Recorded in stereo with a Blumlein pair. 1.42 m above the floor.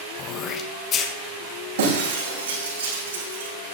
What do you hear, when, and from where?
0.2 s throat clearing: 30° left, 1.3 m
1.8 s breaking glass: 65° right, 6.5 m